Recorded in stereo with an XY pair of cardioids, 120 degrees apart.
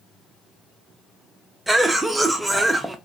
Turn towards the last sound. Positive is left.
turn(degrees=-15)